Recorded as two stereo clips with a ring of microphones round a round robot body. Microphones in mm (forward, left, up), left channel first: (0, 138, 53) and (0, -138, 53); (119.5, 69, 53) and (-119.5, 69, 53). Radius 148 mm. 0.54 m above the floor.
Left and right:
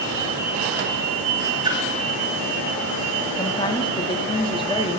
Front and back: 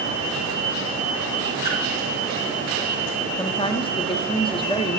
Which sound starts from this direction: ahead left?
A woman speaking, at 3.4 s.